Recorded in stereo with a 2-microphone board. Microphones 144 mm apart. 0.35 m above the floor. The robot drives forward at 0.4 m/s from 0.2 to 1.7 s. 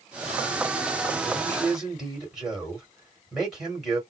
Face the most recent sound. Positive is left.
turn(degrees=0)  # may be behind; listen again after turning